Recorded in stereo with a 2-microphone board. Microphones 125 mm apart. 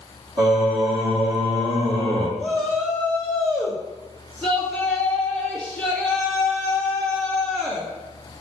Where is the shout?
10° right (ahead or behind), 1.6 m.